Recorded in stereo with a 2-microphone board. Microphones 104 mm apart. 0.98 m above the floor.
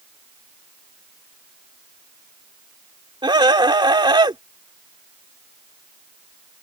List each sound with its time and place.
3.2 s a scream: 45° right (ahead or behind)